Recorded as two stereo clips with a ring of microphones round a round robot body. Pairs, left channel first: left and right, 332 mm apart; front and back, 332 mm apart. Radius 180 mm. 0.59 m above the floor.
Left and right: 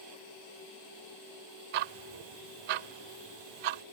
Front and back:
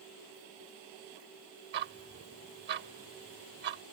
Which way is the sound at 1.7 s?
115° right.